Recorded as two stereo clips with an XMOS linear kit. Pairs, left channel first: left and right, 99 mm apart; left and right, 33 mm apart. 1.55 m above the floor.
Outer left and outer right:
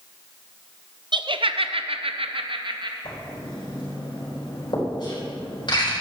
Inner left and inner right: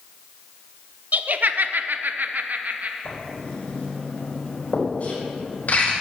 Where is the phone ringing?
I don't hear a phone ringing.